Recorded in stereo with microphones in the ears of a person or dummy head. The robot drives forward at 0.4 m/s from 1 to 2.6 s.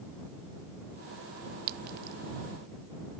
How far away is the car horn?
No car horn in this recording.